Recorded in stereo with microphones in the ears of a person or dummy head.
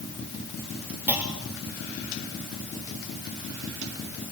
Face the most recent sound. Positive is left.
turn(degrees=-5)  # may be behind; listen again after turning